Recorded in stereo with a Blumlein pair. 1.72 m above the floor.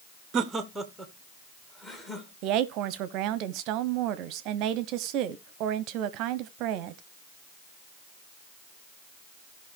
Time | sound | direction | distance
0.3 | laughter | 30° right | 0.7 m
2.4 | a woman speaking | 40° right | 0.9 m